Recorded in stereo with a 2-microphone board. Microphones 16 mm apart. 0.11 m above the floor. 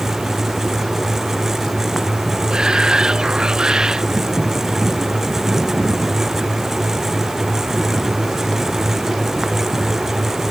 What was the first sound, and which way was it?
A shout, 60° right (ahead or behind).